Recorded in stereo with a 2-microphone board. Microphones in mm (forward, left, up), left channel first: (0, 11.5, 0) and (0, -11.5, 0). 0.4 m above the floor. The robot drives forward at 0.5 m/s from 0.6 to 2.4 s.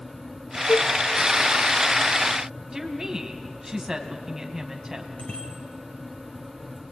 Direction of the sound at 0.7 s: 30° left (ahead or behind).